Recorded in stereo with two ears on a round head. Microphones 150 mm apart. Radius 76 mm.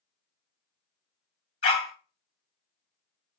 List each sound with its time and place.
1.6 s a dog barking: 35° left (ahead or behind), 1.9 m